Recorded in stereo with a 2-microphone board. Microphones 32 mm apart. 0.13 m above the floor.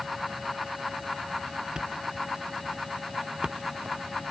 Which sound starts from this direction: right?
A thud, at 1.8 s.